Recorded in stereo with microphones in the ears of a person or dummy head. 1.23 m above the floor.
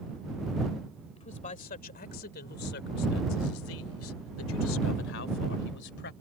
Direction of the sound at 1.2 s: 40° left (ahead or behind).